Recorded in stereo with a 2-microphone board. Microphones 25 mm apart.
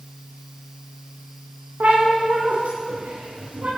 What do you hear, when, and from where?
1.8 s a cat meowing: 80° right, 7 m; by 3.7 s 60° right (ahead or behind), 8.5 m